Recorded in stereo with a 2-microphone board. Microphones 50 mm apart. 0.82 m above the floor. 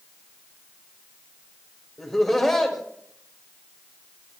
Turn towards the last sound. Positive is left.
turn(degrees=10)  # may be behind; listen again after turning